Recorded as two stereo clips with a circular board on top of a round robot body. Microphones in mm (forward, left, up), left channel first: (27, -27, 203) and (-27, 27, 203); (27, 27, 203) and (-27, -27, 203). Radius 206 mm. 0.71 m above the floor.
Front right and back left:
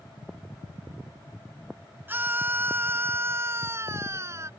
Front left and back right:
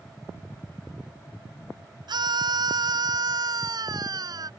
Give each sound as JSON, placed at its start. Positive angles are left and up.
{"t": 2.1, "sound": "a scream", "azimuth_deg": -160}